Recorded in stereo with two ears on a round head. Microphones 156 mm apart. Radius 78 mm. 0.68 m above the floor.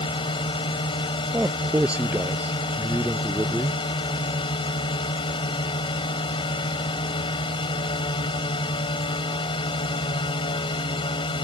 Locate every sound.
0.0 s a drone: 30° left (ahead or behind)
1.3 s a man speaking: 5° right (ahead or behind)